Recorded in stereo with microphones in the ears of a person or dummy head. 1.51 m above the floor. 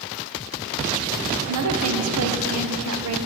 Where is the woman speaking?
80° right, 0.8 m.